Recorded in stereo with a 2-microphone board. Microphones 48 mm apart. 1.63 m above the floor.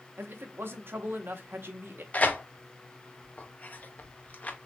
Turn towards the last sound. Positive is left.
turn(degrees=35)  # may be behind; listen again after turning